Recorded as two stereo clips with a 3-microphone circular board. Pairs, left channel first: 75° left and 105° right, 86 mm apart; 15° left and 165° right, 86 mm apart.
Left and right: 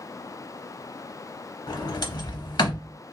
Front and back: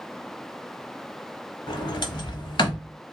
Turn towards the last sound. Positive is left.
turn(degrees=40)